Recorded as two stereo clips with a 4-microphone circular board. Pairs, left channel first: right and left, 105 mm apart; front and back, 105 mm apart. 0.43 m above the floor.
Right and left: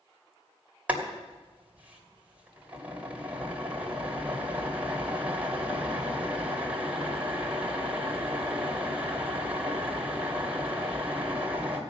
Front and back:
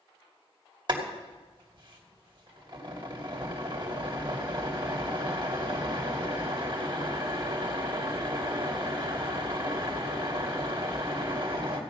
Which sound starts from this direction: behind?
Boiling, at 0.9 s.